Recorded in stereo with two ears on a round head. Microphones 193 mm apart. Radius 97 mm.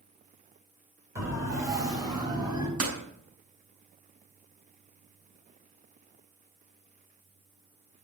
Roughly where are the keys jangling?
No keys jangling in this recording.